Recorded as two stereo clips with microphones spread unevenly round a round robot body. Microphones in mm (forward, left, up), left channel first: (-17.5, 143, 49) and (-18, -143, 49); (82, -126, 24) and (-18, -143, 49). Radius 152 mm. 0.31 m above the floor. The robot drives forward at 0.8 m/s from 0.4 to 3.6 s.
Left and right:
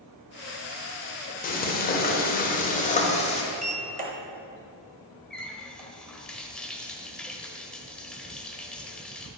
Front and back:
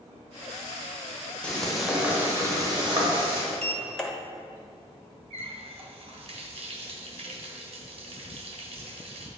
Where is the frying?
55° left, 1.3 m; by 3.4 s 155° left, 1.7 m.